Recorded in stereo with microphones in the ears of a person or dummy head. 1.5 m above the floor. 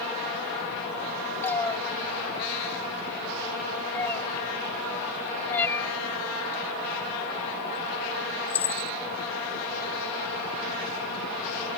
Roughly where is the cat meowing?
Centre.